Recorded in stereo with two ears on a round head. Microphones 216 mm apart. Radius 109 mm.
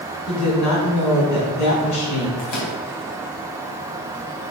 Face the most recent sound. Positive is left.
turn(degrees=70)  # may be behind; listen again after turning